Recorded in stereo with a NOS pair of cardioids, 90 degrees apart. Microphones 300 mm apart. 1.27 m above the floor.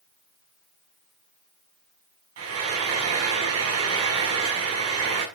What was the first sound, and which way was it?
Frying, 55° right.